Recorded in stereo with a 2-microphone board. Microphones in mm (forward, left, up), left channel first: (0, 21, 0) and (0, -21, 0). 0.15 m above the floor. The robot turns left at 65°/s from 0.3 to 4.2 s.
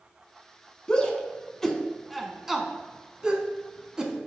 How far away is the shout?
About 1.1 m.